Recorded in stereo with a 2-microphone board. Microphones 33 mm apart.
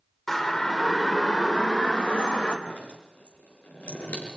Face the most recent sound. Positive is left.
turn(degrees=50)  # may be behind; listen again after turning